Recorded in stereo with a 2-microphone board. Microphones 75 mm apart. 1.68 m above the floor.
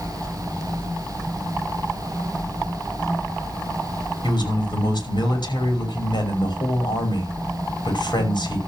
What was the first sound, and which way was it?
A man speaking, 80° left.